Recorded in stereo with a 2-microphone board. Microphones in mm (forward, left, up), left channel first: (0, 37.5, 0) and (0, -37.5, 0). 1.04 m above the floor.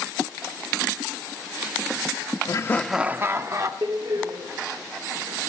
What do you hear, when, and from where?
2.5 s laughter: 50° left (ahead or behind), 0.6 m; by 3.7 s 45° right (ahead or behind), 1.3 m
3.8 s a door slam: 85° right, 1.9 m